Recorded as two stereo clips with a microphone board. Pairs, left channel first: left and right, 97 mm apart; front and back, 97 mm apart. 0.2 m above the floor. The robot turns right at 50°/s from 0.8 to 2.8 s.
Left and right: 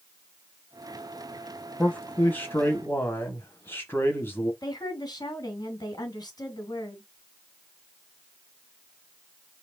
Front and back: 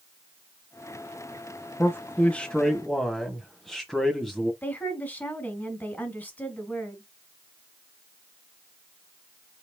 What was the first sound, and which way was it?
A man speaking, 30° left.